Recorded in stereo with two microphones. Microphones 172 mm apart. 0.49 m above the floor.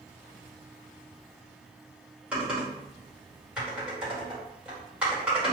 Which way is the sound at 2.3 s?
5° right (ahead or behind).